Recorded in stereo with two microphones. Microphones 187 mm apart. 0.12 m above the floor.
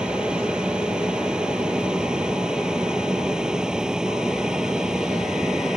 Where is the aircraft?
5° right (ahead or behind).